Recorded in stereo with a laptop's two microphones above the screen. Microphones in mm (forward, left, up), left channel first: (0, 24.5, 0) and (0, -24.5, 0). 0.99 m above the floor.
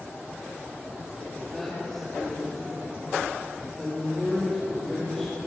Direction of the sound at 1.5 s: 10° left (ahead or behind).